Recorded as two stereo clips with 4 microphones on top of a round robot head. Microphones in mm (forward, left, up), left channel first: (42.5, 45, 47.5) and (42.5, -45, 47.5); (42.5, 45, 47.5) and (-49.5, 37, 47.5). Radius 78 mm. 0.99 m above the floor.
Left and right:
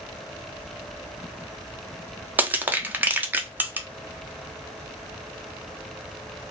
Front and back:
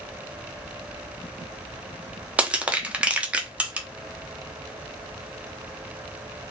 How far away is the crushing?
About 0.5 m.